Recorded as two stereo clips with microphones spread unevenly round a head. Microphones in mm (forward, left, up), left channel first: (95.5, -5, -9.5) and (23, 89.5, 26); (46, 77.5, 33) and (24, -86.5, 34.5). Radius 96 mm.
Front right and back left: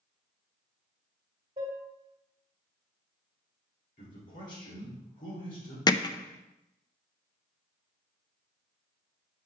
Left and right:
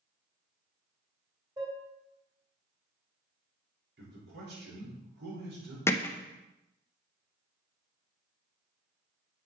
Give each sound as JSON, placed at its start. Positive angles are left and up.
{"t": 1.6, "sound": "dishes clattering", "azimuth_deg": -165, "distance_m": 2.0}
{"t": 4.0, "sound": "a man speaking", "azimuth_deg": -80, "distance_m": 4.0}
{"t": 5.9, "sound": "hammering", "azimuth_deg": 10, "distance_m": 0.6}